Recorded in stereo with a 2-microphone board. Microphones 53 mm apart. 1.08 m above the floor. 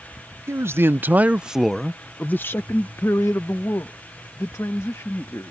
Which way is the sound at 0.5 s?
55° right (ahead or behind).